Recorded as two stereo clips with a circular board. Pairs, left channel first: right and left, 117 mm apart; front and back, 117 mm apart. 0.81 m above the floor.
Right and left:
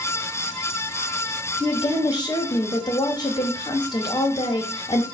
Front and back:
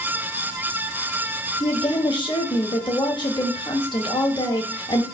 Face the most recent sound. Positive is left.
turn(degrees=-40)